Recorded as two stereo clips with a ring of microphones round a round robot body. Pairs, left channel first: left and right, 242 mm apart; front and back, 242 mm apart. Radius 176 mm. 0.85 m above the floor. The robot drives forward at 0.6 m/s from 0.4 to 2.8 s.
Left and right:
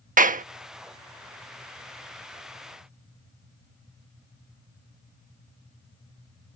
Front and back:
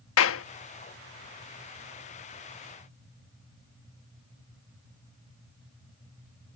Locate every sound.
0.2 s a clap: 35° right